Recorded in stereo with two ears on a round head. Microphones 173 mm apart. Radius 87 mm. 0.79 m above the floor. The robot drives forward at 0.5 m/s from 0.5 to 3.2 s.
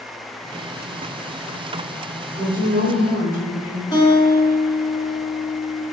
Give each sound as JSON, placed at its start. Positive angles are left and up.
{"t": 2.3, "sound": "a woman speaking", "side_deg": -50, "distance_m": 1.5}
{"t": 3.9, "sound": "a guitar", "side_deg": 20, "distance_m": 0.9}